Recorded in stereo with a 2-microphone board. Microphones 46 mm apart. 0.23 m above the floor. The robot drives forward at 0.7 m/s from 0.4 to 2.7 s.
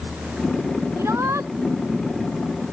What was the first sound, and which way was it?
A shout, 80° right.